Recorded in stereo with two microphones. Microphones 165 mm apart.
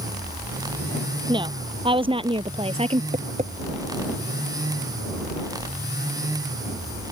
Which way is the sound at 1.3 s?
30° right (ahead or behind).